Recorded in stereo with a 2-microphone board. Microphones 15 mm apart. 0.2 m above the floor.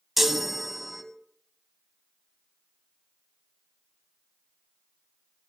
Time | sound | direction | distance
0.2 | a chime | 15° right (ahead or behind) | 1.1 m